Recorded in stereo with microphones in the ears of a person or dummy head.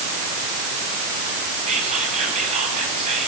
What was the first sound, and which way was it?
Whispering, 35° right (ahead or behind).